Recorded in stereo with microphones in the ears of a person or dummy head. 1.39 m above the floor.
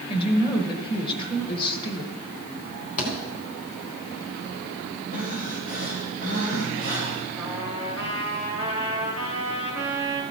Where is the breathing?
40° left (ahead or behind), 3 m.